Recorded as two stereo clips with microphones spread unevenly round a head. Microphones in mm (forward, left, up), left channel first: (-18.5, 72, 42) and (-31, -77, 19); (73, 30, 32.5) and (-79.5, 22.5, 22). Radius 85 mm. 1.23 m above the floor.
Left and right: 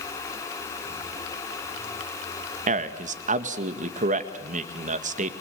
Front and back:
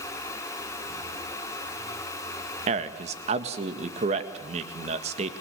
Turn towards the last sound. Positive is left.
turn(degrees=-130)